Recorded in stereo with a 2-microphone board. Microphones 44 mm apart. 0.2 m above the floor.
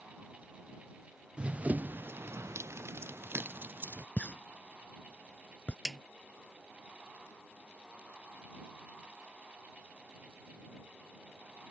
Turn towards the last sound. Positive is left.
turn(degrees=-10)  # may be behind; listen again after turning